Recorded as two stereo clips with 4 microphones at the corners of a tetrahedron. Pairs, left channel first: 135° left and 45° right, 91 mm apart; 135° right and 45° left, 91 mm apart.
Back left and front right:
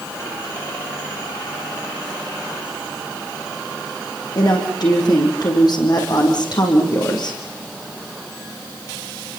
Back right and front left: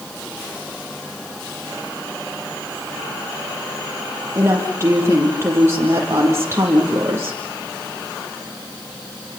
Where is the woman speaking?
105° left, 6 m.